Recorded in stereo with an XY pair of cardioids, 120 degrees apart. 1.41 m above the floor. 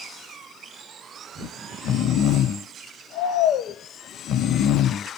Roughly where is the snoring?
Ahead left.